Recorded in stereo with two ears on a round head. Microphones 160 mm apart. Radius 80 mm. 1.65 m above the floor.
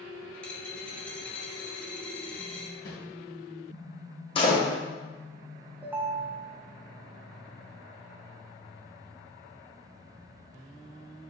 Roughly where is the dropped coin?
Centre.